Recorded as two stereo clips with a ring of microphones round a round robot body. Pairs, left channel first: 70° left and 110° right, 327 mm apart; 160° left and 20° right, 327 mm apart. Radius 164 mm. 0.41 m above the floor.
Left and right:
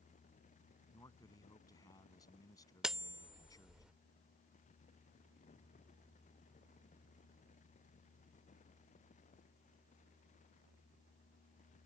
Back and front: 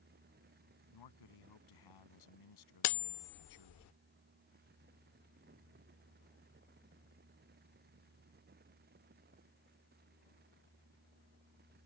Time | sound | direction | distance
0.9 | a man speaking | 145° left | ?
2.8 | cutlery clinking | 160° left | ?